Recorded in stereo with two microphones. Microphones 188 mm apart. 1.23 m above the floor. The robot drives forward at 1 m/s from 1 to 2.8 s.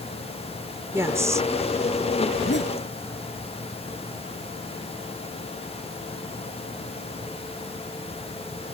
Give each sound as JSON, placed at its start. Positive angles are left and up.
{"t": 0.9, "sound": "a woman speaking", "side_deg": -15}
{"t": 2.3, "sound": "a zipper", "side_deg": 65}